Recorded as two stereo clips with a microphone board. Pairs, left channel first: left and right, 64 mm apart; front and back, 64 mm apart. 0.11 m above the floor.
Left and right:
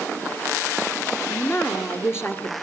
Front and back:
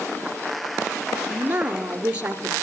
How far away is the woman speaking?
About 1.8 m.